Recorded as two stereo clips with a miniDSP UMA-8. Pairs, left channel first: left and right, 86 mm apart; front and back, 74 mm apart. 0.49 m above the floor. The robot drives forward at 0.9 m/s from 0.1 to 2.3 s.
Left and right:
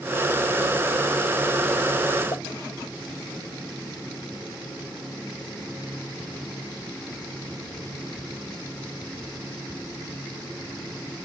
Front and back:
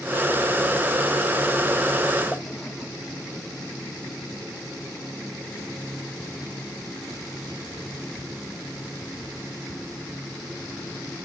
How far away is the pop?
About 1.2 m.